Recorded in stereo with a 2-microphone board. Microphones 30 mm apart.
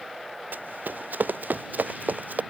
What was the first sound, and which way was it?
Running footsteps, 85° right.